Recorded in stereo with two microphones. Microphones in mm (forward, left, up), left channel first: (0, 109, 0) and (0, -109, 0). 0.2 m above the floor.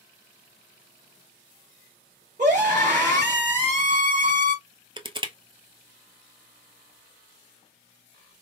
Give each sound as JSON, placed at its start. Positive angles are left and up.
{"t": 2.4, "sound": "a scream", "side_deg": -40, "distance_m": 1.9}
{"t": 5.0, "sound": "crushing", "side_deg": -25, "distance_m": 0.7}